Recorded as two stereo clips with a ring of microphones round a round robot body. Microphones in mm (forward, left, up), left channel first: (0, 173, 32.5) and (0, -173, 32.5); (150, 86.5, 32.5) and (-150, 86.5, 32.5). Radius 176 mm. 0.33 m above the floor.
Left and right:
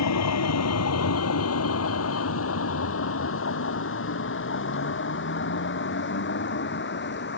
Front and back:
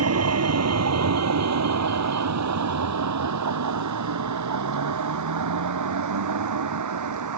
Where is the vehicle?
140° left; by 7.4 s 150° left.